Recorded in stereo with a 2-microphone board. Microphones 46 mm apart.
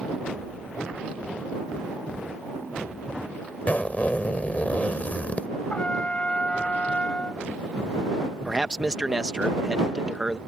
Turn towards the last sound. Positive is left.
turn(degrees=-15)  # may be behind; listen again after turning